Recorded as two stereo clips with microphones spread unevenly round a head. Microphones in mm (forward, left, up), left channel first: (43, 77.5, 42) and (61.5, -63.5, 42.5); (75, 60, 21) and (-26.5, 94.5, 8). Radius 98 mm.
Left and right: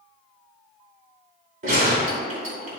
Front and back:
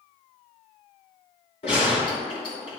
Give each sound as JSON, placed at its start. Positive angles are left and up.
{"t": 1.6, "sound": "a gunshot", "azimuth_deg": -55, "distance_m": 2.0}